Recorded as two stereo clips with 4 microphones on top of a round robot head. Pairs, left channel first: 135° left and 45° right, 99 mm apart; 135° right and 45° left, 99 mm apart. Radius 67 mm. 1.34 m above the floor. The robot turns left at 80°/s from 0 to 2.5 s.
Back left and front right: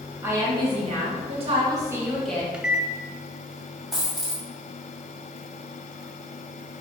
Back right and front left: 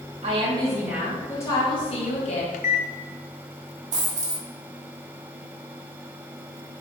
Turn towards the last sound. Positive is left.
turn(degrees=40)